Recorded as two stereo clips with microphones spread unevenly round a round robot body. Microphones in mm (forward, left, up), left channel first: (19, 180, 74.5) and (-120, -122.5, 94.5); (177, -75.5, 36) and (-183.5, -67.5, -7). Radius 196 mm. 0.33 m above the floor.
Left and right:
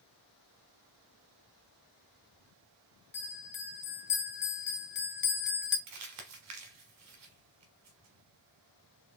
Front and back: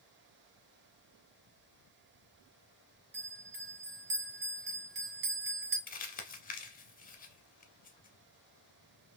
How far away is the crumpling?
About 1.1 m.